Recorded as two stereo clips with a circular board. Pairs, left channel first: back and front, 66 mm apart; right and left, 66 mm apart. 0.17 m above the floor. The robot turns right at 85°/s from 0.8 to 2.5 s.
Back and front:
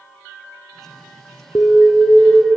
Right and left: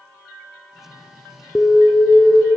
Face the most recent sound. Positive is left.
turn(degrees=-65)